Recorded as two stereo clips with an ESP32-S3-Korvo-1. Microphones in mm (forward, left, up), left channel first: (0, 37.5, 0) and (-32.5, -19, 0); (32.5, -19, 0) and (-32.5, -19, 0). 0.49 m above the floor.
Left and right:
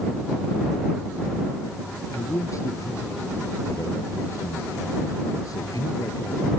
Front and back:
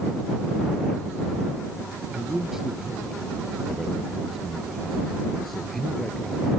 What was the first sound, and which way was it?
A man speaking, 100° left.